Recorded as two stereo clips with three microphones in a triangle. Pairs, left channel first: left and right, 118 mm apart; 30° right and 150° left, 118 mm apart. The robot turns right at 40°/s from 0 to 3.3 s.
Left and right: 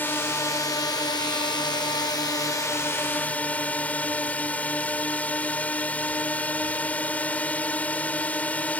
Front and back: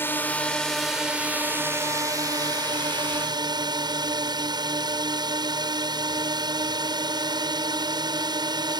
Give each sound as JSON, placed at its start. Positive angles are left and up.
{"t": 0.0, "sound": "a drone", "azimuth_deg": 25}